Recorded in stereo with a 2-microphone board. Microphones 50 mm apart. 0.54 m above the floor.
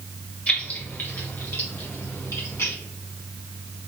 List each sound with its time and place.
0.5 s keys jangling: 25° left (ahead or behind), 1.6 m; by 2.8 s 65° left (ahead or behind), 2.5 m